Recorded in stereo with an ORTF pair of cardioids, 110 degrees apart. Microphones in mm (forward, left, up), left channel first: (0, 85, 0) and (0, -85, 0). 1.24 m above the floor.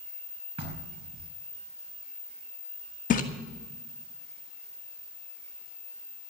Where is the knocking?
35° right, 4.5 m.